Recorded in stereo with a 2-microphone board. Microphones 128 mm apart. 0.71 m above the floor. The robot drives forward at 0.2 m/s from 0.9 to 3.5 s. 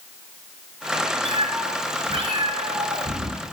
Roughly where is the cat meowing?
Right.